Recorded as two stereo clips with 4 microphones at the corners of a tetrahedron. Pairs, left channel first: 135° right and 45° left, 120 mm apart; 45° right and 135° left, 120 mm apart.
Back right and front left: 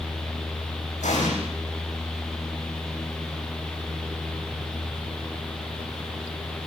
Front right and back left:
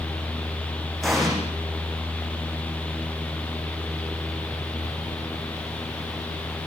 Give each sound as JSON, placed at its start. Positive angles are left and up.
{"t": 1.0, "sound": "an explosion", "azimuth_deg": -135, "distance_m": 10.0}